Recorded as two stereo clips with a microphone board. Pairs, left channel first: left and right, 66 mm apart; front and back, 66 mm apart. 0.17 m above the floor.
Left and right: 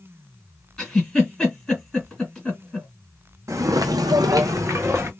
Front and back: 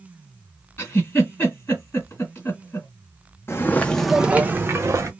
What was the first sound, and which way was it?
A giggle, 15° left.